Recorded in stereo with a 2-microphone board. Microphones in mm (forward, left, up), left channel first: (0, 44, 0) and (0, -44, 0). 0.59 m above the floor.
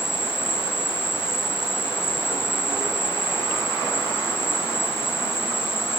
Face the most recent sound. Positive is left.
turn(degrees=25)  # may be behind; listen again after turning